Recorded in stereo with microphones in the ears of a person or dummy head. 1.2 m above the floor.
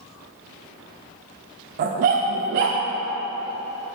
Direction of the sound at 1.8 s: 40° right (ahead or behind).